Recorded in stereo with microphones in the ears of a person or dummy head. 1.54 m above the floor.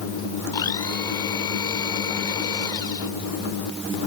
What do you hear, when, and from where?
0.5 s a blender: 20° left (ahead or behind)